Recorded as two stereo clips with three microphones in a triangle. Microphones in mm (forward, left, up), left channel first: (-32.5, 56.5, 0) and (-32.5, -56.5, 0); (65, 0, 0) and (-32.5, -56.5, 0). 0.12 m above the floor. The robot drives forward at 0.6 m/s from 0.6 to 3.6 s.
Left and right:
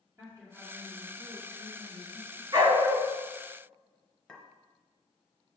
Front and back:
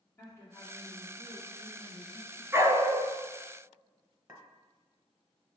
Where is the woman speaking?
35° right, 2.5 m; by 2.4 s 65° right, 2 m.